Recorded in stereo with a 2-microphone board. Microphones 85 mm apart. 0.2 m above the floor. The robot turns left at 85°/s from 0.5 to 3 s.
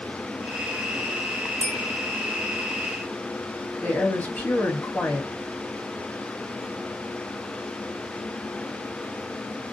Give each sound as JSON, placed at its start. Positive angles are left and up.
{"t": 1.6, "sound": "a bell", "side_deg": 35, "distance_m": 1.3}
{"t": 3.8, "sound": "a woman speaking", "side_deg": 20, "distance_m": 1.0}